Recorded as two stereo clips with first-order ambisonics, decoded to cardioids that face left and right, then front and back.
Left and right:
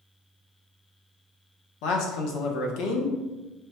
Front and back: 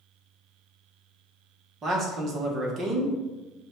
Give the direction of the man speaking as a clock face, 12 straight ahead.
8 o'clock.